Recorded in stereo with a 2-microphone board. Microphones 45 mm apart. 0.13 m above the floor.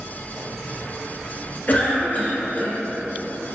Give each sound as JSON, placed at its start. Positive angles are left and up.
{"t": 1.7, "sound": "a cough", "side_deg": 40, "distance_m": 1.6}